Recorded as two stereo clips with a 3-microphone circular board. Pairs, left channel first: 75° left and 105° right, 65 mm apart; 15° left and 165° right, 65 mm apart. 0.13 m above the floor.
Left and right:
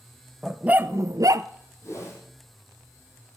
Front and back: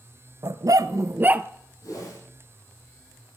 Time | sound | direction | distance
0.4 | a dog barking | 175° left | 0.6 m
1.8 | a whoosh | 30° left | 5.5 m